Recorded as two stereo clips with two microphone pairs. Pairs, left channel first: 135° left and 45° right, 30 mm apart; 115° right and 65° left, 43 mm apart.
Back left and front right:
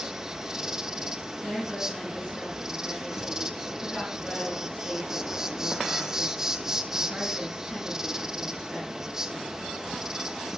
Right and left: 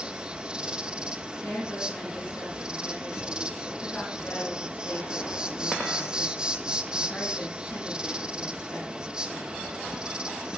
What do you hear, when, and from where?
0.0 s an insect: 15° left, 1.2 m
1.4 s a woman speaking: 150° right, 6.5 m